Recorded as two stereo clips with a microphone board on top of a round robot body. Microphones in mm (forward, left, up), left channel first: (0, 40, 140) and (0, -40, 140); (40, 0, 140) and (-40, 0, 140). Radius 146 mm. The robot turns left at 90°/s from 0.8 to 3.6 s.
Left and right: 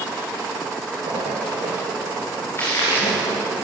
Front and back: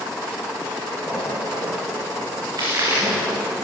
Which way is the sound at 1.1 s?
75° right.